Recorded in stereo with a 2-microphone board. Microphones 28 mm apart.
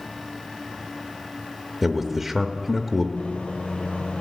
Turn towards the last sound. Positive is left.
turn(degrees=70)  # may be behind; listen again after turning